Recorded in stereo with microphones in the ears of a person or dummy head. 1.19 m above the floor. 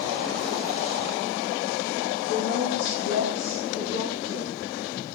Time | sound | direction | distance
2.3 | a woman speaking | 80° left | 3 m